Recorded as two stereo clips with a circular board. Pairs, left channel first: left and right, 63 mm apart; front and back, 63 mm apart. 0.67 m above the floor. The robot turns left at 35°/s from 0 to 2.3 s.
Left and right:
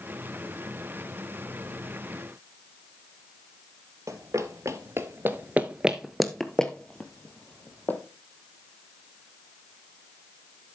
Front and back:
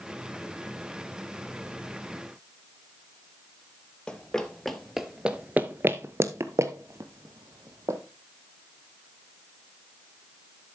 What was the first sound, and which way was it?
Running footsteps, 75° right.